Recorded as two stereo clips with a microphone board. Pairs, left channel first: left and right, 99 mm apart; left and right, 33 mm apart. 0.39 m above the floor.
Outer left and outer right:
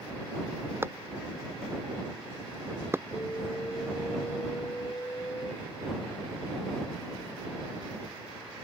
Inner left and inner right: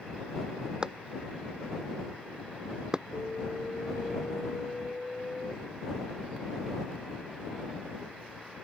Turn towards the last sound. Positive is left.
turn(degrees=30)  # may be behind; listen again after turning